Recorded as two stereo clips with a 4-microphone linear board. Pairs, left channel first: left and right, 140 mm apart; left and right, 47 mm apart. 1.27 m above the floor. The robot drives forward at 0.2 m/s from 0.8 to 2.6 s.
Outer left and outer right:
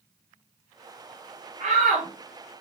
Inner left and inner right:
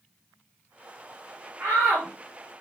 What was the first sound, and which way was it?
A shout, 60° right (ahead or behind).